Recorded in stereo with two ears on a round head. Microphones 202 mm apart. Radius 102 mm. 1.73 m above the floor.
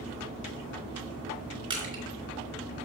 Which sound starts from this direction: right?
Crushing, at 1.7 s.